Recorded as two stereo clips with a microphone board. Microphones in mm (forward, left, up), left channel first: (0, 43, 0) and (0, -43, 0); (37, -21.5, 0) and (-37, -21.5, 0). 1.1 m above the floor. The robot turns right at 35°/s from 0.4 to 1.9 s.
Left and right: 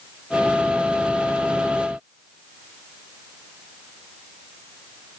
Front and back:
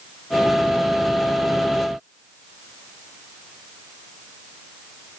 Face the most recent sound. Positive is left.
No sound to turn to.